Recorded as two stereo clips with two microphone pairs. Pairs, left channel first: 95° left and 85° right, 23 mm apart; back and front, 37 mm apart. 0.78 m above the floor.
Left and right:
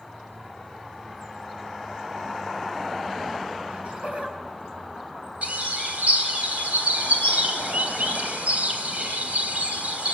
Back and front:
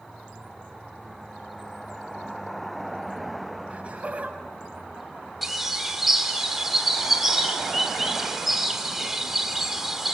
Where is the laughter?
55° right, 6 m; by 5.3 s 50° right, 5.5 m.